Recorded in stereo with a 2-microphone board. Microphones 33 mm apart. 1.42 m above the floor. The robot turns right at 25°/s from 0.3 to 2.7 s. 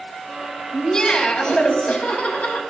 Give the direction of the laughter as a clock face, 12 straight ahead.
11 o'clock.